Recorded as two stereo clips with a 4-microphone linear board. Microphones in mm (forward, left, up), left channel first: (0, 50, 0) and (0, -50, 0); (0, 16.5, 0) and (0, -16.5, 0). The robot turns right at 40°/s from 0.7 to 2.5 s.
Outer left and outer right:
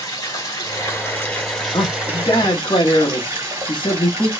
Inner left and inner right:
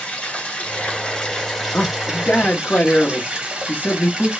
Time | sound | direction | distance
0.0 | running water | 140° left | 1.5 m
1.7 | a man speaking | 75° left | 1.0 m